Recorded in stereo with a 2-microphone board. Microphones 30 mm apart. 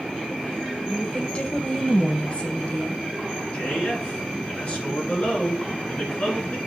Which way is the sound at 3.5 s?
45° left (ahead or behind).